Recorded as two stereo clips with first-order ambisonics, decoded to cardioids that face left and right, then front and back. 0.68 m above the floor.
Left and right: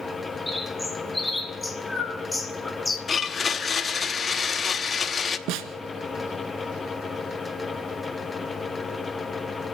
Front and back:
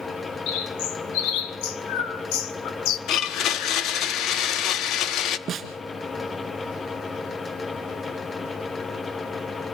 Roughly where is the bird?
Ahead.